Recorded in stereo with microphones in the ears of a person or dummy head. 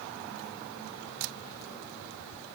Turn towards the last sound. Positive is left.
No sound to turn to.